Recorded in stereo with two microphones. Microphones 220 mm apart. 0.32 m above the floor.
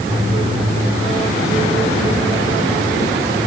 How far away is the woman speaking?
No woman speaking in this recording.